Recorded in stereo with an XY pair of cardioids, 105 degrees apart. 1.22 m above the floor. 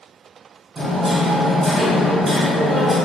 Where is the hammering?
30° right, 1.5 m.